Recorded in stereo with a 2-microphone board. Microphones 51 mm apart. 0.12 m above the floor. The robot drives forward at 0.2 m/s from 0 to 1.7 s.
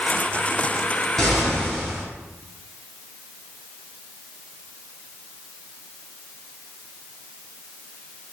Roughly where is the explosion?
Centre.